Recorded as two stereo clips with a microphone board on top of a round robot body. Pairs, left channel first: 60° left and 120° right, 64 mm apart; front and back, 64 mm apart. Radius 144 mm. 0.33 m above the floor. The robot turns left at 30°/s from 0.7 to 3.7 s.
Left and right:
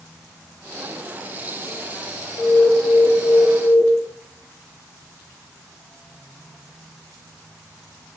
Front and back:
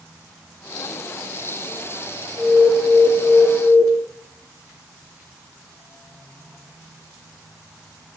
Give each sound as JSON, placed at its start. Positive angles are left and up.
{"t": 2.4, "sound": "an alarm", "azimuth_deg": -110, "distance_m": 2.5}